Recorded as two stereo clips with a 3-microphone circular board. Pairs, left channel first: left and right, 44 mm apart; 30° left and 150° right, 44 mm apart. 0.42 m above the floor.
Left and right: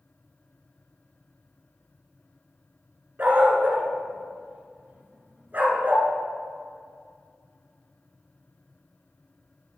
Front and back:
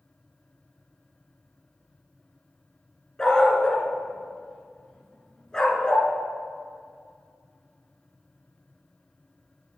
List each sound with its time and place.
3.2 s a dog barking: 40° right, 1.6 m